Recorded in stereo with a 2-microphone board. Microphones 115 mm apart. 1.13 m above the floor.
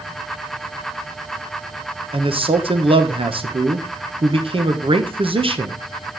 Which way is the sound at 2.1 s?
50° right (ahead or behind).